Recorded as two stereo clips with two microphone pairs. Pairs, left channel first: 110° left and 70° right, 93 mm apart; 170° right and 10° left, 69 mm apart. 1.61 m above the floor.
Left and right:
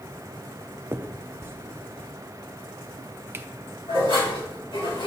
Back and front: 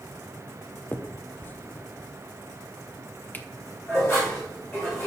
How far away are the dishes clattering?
About 3 m.